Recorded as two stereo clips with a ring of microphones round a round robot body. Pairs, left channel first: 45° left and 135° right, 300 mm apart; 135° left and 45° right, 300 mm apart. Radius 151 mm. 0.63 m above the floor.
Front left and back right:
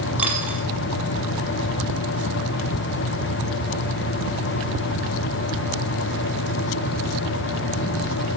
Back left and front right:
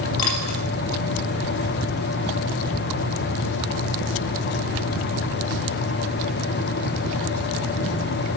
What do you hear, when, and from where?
0.2 s a dropped coin: 140° left, 3.5 m